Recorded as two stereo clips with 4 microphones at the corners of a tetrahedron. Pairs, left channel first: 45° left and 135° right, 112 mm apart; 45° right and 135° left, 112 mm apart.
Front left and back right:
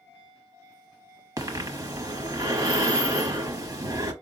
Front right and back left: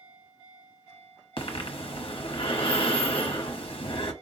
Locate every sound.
1.4 s breathing: 80° right, 1.0 m